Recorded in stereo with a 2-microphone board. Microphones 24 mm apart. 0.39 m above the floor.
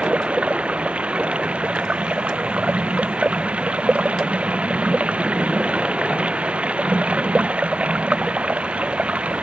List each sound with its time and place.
0.0 s running water: 60° right (ahead or behind)